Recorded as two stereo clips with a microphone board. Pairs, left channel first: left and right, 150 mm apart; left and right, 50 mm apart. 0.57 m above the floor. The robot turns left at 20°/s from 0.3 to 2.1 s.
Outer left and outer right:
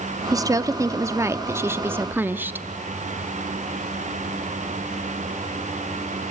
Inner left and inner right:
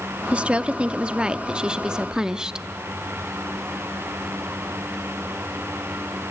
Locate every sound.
0.3 s a woman speaking: 25° right (ahead or behind), 0.8 m; by 2.6 s 15° right (ahead or behind), 0.8 m